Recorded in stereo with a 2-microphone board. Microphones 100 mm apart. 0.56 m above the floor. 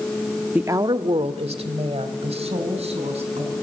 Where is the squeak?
I don't hear a squeak.